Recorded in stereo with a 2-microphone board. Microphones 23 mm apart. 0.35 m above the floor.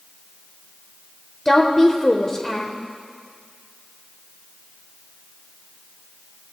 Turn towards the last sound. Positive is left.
turn(degrees=20)  # may be behind; listen again after turning